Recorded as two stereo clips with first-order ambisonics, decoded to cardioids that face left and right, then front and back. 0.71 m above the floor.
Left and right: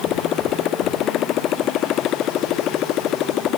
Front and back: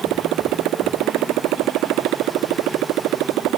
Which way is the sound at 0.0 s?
140° left.